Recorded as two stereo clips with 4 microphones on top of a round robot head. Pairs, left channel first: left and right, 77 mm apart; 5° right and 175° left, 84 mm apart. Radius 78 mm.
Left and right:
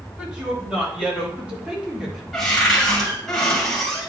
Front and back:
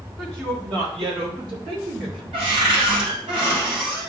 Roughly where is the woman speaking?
Behind.